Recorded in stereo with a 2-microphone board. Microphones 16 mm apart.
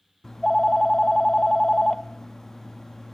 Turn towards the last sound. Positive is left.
turn(degrees=30)  # may be behind; listen again after turning